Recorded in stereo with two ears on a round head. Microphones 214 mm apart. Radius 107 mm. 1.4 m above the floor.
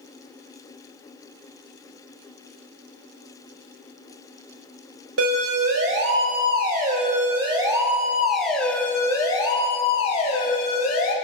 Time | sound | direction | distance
5.2 | a siren | 60° right (ahead or behind) | 5 m